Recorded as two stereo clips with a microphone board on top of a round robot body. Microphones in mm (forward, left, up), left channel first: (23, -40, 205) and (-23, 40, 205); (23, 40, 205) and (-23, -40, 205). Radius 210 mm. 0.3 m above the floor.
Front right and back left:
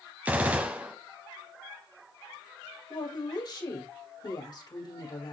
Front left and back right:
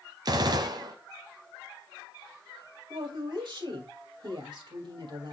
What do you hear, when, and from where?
0.2 s a gunshot: 165° right, 0.7 m
2.9 s a woman speaking: 95° right, 2.5 m